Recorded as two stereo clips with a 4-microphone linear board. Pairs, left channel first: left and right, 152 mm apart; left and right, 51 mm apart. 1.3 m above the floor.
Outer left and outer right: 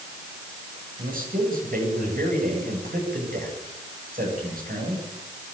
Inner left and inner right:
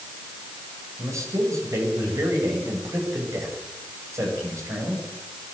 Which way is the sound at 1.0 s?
75° right (ahead or behind).